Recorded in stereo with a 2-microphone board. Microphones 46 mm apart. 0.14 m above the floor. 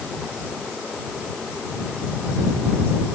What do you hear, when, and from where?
Only background noise.